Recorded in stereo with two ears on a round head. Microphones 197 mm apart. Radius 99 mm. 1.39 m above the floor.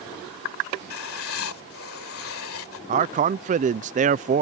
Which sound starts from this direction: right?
A man speaking, at 2.9 s.